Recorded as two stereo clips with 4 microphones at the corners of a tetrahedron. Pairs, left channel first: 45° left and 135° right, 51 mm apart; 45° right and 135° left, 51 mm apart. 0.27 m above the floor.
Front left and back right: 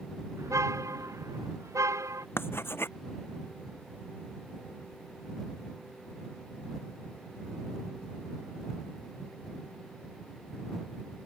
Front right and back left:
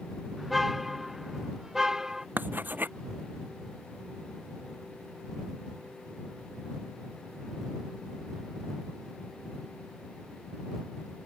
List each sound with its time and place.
0.4 s a car horn: 135° right; by 2.3 s 145° right
2.4 s writing: 85° left